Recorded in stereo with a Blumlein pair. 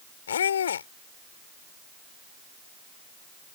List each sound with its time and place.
0.3 s a squeak: 65° left